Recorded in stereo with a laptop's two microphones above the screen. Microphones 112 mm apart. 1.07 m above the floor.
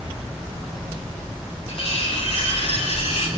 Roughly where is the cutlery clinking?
Left.